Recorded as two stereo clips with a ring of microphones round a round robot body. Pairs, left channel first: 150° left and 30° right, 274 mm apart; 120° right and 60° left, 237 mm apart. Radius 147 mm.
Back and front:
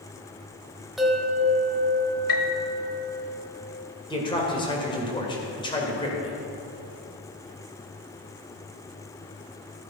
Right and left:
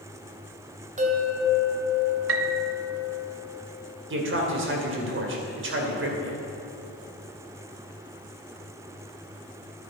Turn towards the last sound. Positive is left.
turn(degrees=80)